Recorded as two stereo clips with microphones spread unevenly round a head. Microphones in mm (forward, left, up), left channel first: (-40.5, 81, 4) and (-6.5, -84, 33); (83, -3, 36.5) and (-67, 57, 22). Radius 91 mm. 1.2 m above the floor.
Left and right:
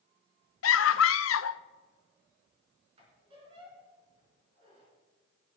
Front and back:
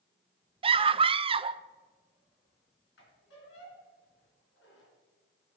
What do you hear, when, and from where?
0.6 s a scream: 100° left, 0.5 m
3.0 s a squeak: 20° right, 3.5 m